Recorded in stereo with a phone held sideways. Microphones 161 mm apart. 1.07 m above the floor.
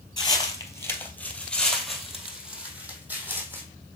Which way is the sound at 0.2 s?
30° left (ahead or behind).